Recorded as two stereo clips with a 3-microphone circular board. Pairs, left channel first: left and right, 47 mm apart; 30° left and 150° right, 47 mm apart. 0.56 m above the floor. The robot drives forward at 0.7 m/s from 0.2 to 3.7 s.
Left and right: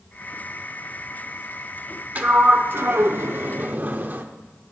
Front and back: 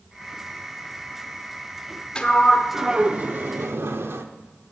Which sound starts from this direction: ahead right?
A sliding door, at 2.1 s.